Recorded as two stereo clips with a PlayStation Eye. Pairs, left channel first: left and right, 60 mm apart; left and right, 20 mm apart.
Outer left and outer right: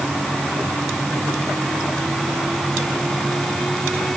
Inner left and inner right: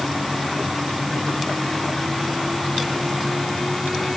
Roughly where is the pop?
No pop in this recording.